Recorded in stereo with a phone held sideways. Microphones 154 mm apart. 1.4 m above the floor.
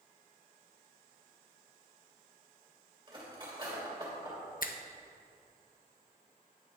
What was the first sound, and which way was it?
Cutlery clinking, 30° right (ahead or behind).